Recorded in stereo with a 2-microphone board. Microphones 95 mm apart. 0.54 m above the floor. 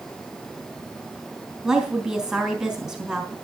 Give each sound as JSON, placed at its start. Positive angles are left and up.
{"t": 1.6, "sound": "a woman speaking", "side_deg": 0, "distance_m": 3.0}